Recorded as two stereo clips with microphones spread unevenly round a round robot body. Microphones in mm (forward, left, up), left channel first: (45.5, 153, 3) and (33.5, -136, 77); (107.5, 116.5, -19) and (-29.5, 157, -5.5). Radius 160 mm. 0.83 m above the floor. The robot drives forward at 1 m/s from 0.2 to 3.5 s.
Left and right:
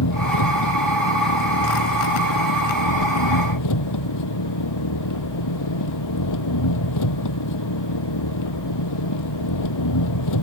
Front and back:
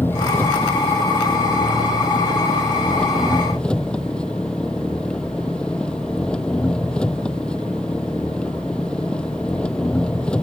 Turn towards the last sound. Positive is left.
turn(degrees=65)